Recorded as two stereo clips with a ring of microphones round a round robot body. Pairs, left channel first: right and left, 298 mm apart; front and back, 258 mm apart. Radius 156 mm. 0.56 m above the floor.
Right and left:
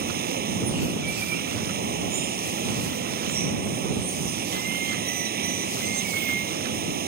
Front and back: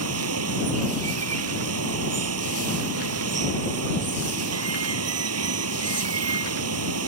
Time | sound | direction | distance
0.0 | running water | 150° left | ?